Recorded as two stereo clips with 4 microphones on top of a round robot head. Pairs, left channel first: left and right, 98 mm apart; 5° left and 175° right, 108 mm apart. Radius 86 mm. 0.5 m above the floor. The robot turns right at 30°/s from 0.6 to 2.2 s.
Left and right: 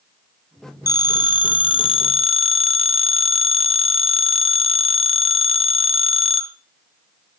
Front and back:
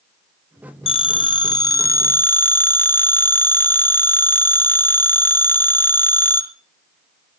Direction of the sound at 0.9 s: 35° left.